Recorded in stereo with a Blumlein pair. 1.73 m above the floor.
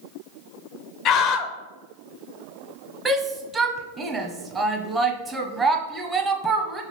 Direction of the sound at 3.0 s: 10° right.